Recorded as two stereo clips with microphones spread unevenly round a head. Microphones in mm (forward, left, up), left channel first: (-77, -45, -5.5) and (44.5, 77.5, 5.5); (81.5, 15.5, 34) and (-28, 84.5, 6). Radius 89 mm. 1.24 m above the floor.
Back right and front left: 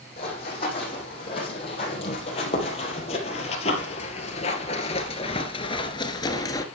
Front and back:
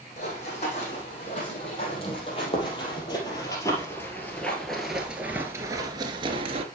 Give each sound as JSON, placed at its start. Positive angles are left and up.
{"t": 0.2, "sound": "running footsteps", "azimuth_deg": -75, "distance_m": 3.5}